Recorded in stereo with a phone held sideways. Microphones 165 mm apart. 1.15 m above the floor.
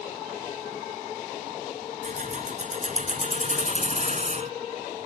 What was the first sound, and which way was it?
Keys jangling, 50° right (ahead or behind).